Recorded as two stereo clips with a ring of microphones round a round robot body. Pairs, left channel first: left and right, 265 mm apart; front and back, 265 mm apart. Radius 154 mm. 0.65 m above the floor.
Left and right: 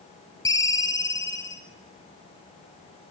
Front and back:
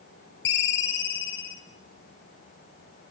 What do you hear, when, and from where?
0.5 s a ringtone: 15° left, 2.5 m